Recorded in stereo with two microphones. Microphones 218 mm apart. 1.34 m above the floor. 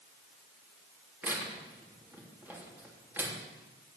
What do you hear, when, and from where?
1.2 s tearing paper: 10° right (ahead or behind), 3 m